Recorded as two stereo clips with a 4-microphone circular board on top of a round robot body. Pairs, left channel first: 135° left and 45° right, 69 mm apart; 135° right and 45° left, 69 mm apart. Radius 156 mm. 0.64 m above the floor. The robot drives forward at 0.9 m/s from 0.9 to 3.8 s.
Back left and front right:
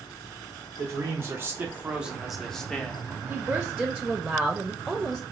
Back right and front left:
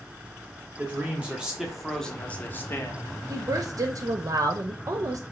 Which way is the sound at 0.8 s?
15° right.